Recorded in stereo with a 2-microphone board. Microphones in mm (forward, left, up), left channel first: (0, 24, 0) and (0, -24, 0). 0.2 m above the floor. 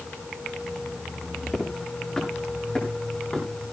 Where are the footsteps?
5° left (ahead or behind), 9 m; by 3.5 s 20° left (ahead or behind), 8.5 m.